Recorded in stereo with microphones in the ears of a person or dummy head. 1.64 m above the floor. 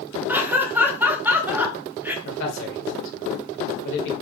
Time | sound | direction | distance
0.3 | laughter | 10° right (ahead or behind) | 0.9 m
2.2 | a man speaking | 65° left (ahead or behind) | 1.6 m